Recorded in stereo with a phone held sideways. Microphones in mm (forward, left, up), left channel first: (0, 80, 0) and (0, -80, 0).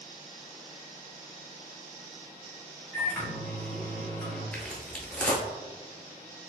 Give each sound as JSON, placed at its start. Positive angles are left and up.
{"t": 2.9, "sound": "a microwave", "side_deg": 10, "distance_m": 1.5}
{"t": 4.5, "sound": "footsteps", "side_deg": 5, "distance_m": 1.0}